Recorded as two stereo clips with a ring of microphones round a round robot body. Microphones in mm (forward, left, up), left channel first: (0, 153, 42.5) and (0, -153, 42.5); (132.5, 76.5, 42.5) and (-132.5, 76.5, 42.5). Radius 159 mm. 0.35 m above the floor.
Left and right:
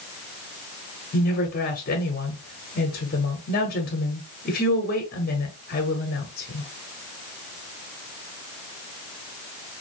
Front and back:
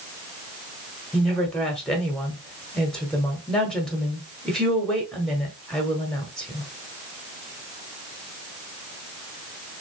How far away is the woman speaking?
About 1.0 m.